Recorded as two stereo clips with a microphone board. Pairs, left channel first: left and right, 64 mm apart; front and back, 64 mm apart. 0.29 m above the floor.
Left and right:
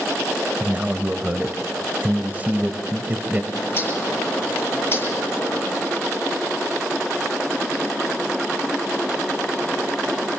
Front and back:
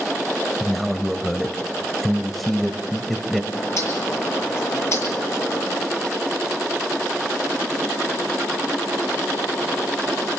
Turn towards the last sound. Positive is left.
turn(degrees=40)